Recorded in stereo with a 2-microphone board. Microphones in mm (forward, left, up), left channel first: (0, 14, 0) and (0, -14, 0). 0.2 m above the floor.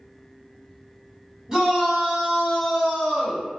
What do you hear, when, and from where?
1.5 s a shout: 25° right (ahead or behind), 1.6 m; by 3.5 s 5° right (ahead or behind), 2 m